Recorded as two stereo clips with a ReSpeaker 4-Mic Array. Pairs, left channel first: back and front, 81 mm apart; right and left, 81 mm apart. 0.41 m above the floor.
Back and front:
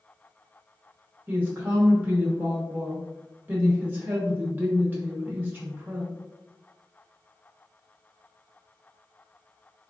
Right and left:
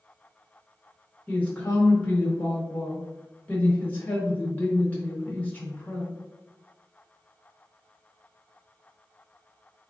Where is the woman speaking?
40° right, 0.8 m.